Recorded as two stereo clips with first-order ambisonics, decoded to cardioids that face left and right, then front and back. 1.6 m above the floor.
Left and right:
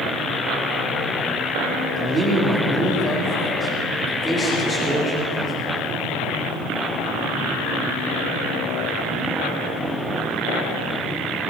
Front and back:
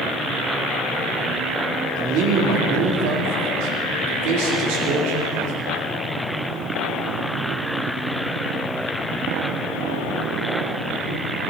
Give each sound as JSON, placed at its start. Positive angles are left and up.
{"t": 2.0, "sound": "a man speaking", "azimuth_deg": -155, "distance_m": 3.0}